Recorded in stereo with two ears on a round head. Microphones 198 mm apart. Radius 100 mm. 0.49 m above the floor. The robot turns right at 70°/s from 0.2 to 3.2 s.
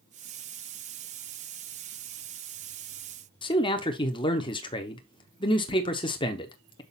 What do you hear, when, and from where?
3.4 s a man speaking: 20° left (ahead or behind), 0.7 m